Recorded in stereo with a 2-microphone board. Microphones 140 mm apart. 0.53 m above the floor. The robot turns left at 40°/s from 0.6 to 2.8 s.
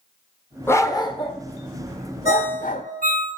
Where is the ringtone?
50° right (ahead or behind), 2 m; by 3.3 s 70° right (ahead or behind), 2 m.